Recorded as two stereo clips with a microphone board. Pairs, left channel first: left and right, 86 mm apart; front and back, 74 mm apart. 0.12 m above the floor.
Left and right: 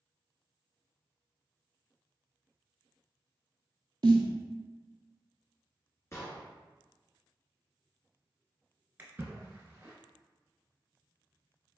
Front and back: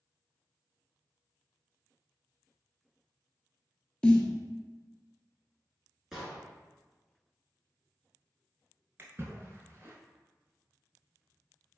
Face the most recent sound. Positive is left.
turn(degrees=-145)